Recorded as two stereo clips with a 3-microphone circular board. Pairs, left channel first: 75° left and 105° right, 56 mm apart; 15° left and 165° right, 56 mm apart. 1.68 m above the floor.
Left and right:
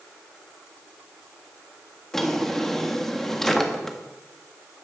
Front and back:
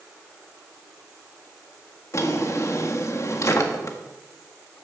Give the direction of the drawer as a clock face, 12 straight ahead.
12 o'clock.